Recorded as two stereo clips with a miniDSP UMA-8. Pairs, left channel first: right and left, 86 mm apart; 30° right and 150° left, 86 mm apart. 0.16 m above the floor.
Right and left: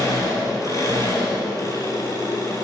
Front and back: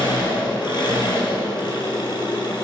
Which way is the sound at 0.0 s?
45° right.